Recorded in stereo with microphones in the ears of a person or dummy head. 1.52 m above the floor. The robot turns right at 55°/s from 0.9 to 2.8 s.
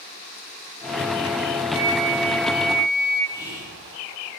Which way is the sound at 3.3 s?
15° left (ahead or behind).